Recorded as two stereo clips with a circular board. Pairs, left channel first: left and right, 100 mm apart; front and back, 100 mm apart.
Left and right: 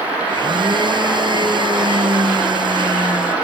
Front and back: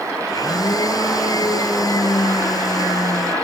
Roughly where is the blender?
Ahead right.